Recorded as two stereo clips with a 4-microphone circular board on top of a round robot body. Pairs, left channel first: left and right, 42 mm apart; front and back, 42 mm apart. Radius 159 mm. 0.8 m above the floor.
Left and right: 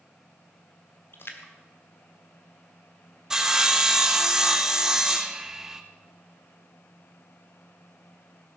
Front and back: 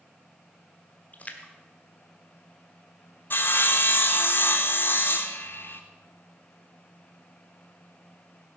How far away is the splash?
About 1.3 m.